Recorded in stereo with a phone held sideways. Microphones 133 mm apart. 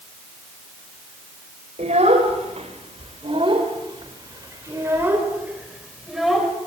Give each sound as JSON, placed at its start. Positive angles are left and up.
{"t": 1.8, "sound": "a child speaking", "side_deg": -70, "distance_m": 4.0}